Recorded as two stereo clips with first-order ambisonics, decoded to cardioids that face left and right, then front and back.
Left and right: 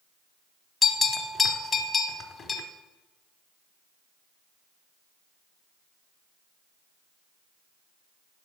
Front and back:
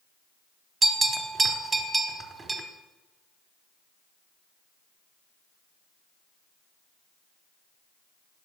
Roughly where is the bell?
Behind left.